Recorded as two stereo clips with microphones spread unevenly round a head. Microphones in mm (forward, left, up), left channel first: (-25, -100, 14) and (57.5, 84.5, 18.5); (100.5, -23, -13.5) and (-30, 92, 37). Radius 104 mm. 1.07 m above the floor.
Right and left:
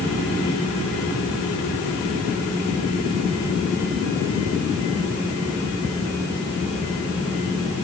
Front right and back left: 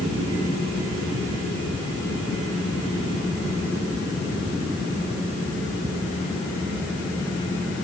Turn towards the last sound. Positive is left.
No sound to turn to.